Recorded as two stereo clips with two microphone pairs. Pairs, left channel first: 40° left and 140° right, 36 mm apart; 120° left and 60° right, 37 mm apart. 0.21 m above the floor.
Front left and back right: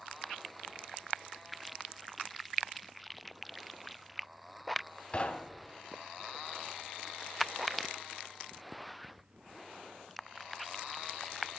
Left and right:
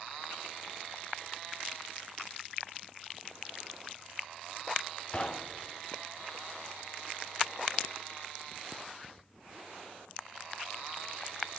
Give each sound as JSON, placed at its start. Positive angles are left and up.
{"t": 5.1, "sound": "knocking", "azimuth_deg": 80, "distance_m": 0.8}